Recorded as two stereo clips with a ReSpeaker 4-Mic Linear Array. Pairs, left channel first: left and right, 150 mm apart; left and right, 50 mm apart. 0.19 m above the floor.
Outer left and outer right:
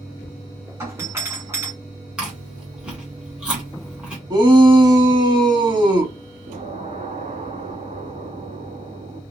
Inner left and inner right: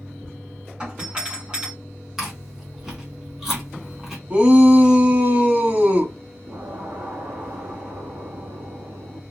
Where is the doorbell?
20° right (ahead or behind), 2 m.